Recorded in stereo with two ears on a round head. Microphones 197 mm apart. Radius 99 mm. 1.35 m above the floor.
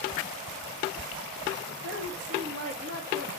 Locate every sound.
1.7 s a woman speaking: 55° right (ahead or behind), 1.9 m; by 3.3 s 35° right (ahead or behind), 2.5 m